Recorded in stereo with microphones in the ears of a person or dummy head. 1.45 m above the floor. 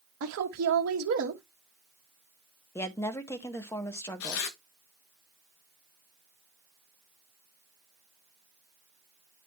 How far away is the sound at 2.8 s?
About 1.1 m.